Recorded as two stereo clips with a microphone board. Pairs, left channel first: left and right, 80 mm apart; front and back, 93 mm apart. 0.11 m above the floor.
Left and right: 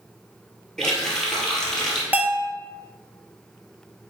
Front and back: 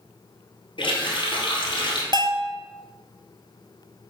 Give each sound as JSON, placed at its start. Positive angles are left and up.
{"t": 0.8, "sound": "a running tap", "azimuth_deg": 5, "distance_m": 1.9}
{"t": 2.1, "sound": "a bell", "azimuth_deg": -155, "distance_m": 0.7}